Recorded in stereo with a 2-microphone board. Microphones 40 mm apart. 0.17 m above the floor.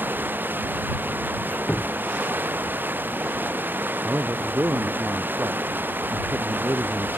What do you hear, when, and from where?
0.0 s running water: 55° right (ahead or behind)
1.4 s a squeak: 40° left (ahead or behind)
4.0 s a man speaking: 75° right (ahead or behind)